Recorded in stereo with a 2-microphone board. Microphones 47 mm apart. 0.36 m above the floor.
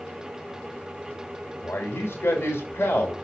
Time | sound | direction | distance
1.6 | a man speaking | 55° left (ahead or behind) | 1.5 m